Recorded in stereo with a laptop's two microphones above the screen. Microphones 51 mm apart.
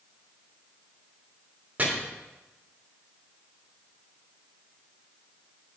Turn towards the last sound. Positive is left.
turn(degrees=-30)  # may be behind; listen again after turning